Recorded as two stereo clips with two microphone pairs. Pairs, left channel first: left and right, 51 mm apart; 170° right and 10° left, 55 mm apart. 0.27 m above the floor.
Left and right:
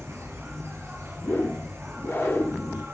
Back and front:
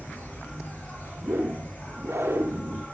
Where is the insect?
110° right, 7.5 m.